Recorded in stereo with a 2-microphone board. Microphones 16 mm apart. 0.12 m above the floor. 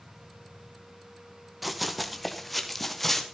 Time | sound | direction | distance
1.6 | running footsteps | 5° right (ahead or behind) | 2.5 m